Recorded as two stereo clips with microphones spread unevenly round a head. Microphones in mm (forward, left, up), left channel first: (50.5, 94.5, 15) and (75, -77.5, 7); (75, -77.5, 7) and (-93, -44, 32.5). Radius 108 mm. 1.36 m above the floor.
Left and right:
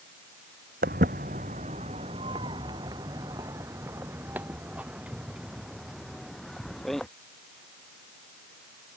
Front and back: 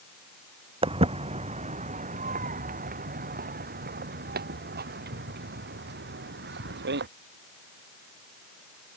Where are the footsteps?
135° right; by 7.1 s 175° right.